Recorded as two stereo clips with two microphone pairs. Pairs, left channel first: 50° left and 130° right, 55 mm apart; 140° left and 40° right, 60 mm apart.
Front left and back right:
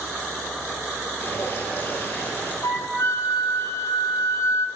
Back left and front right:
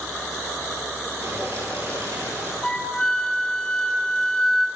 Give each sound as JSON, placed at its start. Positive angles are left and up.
{"t": 1.2, "sound": "dripping", "azimuth_deg": 5, "distance_m": 9.0}
{"t": 2.6, "sound": "a flute", "azimuth_deg": 60, "distance_m": 3.5}